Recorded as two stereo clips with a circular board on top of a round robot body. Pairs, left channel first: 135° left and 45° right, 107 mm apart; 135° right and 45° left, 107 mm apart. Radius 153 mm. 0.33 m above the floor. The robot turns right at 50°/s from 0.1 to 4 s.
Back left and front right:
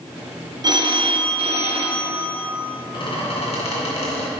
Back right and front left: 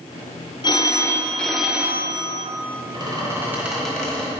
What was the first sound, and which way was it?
A phone ringing, 90° right.